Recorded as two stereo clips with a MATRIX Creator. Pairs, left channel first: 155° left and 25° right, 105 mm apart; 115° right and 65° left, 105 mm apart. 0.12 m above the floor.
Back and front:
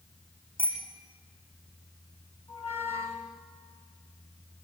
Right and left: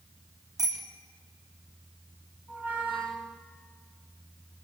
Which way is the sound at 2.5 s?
140° left.